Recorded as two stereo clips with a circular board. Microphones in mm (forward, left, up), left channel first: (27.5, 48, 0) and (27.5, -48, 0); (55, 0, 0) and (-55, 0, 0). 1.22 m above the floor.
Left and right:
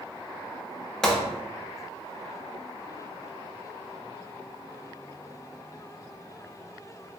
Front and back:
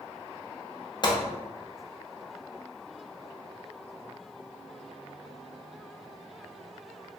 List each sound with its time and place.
1.0 s a gunshot: 5° left, 0.6 m